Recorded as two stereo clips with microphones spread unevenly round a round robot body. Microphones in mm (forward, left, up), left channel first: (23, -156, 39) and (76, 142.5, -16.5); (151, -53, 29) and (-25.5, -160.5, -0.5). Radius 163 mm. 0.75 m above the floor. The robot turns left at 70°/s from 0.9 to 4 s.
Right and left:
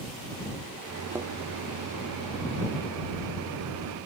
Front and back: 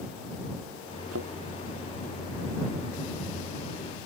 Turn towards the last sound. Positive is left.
turn(degrees=-35)